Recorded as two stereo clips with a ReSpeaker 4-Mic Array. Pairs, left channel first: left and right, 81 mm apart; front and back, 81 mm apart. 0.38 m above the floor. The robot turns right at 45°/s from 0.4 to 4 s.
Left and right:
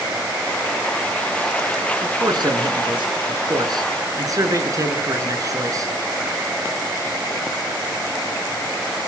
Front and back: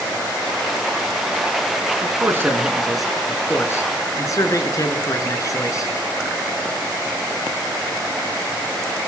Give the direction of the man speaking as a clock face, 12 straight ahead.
4 o'clock.